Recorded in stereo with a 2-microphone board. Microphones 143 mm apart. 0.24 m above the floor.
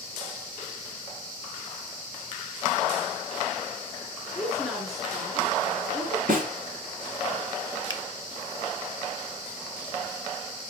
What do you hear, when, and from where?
4.3 s a woman speaking: centre (ahead or behind), 4 m
6.3 s a snare drum: 80° right, 2.5 m
7.9 s a finger snap: 30° left (ahead or behind), 1.0 m